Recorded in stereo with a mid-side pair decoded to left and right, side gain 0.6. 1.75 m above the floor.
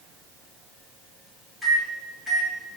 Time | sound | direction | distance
1.6 | a microwave | 10° right | 1.1 m